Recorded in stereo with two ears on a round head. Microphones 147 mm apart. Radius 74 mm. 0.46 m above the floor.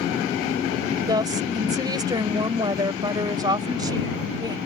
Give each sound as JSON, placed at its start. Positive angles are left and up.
{"t": 1.1, "sound": "a woman speaking", "side_deg": -25}